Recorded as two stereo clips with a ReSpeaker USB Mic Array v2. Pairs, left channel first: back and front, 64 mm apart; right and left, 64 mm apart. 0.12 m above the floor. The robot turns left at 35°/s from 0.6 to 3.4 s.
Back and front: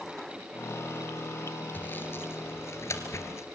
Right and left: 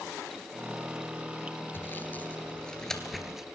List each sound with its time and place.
1.7 s sawing: 130° right, 2 m; by 3.5 s 170° left, 2 m